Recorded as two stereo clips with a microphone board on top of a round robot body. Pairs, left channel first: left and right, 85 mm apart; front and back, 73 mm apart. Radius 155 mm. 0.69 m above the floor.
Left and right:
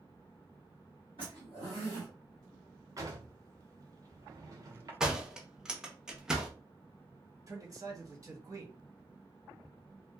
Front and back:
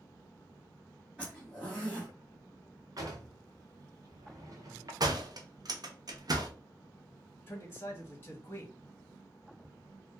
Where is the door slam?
170° right, 0.7 m.